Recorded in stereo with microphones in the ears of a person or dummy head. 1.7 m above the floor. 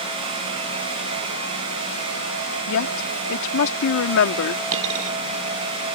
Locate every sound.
2.7 s a woman speaking: 80° left
4.7 s a dropped coin: 70° right (ahead or behind)